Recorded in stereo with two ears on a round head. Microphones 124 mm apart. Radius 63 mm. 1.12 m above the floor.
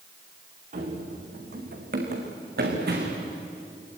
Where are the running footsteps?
60° right (ahead or behind), 4.5 m; by 3.3 s 80° right, 5.5 m.